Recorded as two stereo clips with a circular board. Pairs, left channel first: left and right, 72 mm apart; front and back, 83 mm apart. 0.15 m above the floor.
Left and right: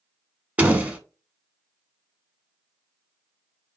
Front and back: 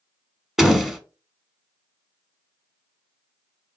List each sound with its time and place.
0.6 s a door slam: 100° right, 0.8 m